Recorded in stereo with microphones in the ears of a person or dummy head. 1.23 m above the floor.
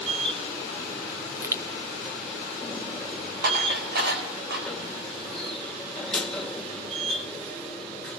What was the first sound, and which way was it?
A machine running, 5° left (ahead or behind).